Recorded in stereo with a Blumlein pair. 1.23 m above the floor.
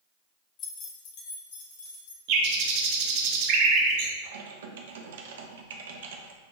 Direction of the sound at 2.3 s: 45° right.